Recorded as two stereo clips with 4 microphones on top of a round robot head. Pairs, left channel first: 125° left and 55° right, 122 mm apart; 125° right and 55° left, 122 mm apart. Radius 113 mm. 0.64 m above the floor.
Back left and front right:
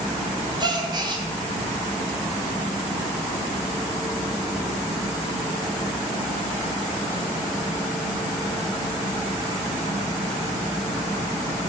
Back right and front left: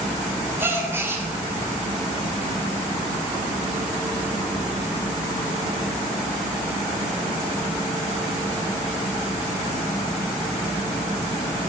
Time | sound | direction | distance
0.6 | a gasp | 15° right | 1.3 m